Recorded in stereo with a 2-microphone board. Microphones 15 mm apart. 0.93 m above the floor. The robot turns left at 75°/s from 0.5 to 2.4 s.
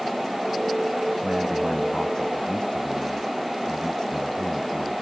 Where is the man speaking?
140° right; by 5.0 s 130° left.